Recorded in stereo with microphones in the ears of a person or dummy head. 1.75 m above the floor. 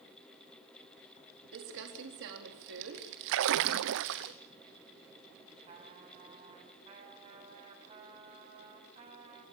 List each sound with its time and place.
1.5 s crumpling: 75° right (ahead or behind), 4 m
3.3 s a splash: 65° right (ahead or behind), 0.8 m
5.7 s a trumpet: 40° right (ahead or behind), 7 m